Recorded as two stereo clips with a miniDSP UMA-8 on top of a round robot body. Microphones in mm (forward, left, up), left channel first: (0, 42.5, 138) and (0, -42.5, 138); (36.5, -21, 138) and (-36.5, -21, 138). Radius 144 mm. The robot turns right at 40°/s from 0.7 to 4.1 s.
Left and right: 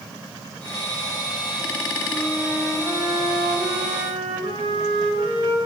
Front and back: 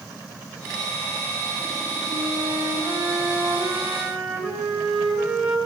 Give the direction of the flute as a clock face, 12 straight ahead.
6 o'clock.